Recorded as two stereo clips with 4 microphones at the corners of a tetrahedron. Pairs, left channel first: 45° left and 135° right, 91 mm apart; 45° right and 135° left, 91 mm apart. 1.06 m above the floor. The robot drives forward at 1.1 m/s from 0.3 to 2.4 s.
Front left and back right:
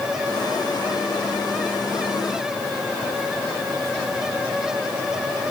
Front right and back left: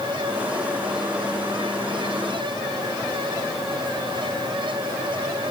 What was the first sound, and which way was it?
Only background noise.